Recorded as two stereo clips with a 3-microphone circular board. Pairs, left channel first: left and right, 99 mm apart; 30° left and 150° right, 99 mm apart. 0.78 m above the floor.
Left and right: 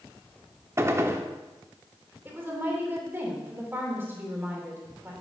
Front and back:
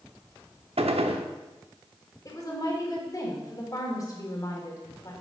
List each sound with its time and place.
0.8 s a gunshot: 155° right, 0.7 m
2.2 s a woman speaking: 25° right, 2.5 m